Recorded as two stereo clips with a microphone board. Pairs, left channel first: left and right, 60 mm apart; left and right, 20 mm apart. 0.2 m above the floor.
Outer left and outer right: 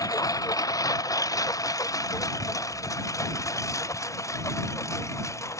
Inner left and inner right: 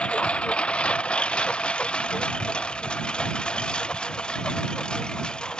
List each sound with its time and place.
0.0 s a lawn mower: 85° left; by 5.6 s 55° left (ahead or behind)